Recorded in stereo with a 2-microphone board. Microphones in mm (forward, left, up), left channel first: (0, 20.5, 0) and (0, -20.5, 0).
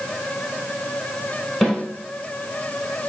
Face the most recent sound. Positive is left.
turn(degrees=-5)  # may be behind; listen again after turning